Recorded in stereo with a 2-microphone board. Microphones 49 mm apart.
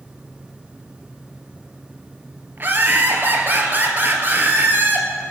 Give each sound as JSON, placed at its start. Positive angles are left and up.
{"t": 2.6, "sound": "laughter", "side_deg": -40, "distance_m": 2.5}